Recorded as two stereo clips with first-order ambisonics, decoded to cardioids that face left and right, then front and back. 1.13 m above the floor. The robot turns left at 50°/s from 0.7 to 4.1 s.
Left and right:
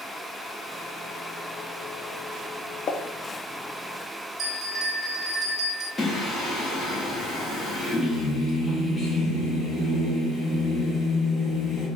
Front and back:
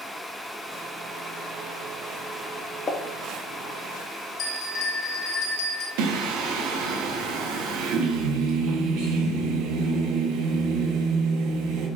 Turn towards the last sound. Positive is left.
turn(degrees=170)